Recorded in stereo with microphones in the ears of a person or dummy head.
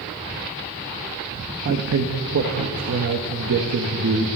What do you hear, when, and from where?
1.6 s a man speaking: 60° right (ahead or behind), 1.4 m